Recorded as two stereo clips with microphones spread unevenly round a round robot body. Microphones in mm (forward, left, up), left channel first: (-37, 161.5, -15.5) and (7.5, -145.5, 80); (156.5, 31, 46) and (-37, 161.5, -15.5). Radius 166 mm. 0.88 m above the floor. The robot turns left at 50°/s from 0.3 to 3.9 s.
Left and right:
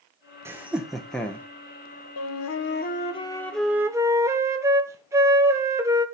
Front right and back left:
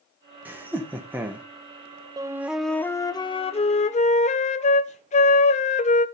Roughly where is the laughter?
Behind.